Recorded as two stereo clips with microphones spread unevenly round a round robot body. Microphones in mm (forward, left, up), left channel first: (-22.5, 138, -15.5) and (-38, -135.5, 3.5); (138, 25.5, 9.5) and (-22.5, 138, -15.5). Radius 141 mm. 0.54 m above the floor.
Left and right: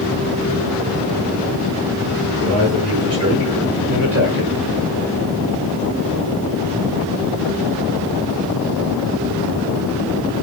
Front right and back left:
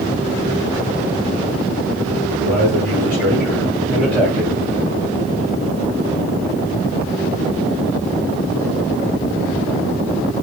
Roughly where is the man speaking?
Behind right.